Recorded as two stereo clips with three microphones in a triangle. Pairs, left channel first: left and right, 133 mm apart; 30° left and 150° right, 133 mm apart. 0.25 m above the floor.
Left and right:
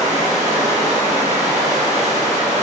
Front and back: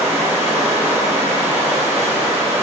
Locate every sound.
0.0 s running water: 80° right, 1.3 m